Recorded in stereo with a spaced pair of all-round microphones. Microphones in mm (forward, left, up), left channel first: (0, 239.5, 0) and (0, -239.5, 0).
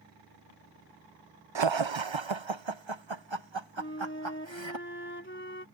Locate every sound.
1.6 s laughter: 65° right (ahead or behind)
3.8 s a flute: 25° left (ahead or behind)